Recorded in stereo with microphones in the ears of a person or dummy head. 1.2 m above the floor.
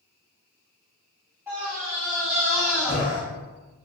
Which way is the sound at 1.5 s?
15° right (ahead or behind).